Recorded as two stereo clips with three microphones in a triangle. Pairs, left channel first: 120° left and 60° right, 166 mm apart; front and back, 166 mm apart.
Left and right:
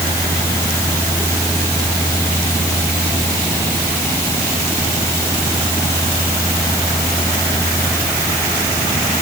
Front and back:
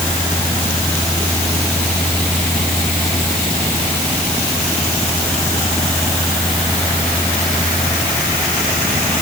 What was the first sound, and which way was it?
Only background noise.